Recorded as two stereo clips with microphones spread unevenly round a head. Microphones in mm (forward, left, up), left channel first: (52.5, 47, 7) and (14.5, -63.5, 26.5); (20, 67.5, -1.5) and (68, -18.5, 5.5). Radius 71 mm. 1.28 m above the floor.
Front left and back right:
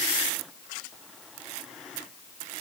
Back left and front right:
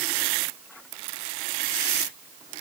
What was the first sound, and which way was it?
Only background noise.